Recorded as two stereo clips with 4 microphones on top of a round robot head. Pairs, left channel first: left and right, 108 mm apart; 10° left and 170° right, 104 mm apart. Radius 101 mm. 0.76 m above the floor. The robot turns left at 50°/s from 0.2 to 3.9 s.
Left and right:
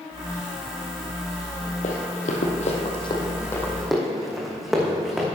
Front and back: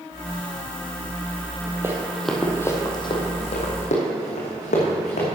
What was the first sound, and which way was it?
Running footsteps, 125° left.